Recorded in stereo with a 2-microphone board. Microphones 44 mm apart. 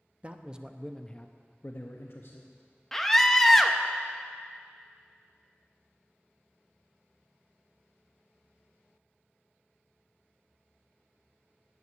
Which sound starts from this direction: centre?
A scream, at 2.9 s.